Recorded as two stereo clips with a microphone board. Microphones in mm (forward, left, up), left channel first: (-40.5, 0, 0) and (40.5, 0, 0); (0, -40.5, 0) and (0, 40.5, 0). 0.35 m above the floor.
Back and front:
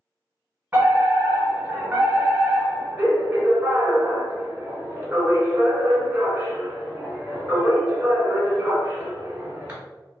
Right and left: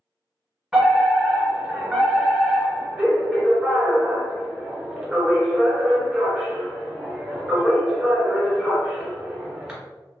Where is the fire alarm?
15° left, 1.9 m.